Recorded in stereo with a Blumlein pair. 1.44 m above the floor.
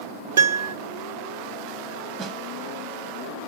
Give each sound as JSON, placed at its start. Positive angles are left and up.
{"t": 0.4, "sound": "a piano", "azimuth_deg": -60, "distance_m": 0.8}
{"t": 2.2, "sound": "a snare drum", "azimuth_deg": -30, "distance_m": 0.9}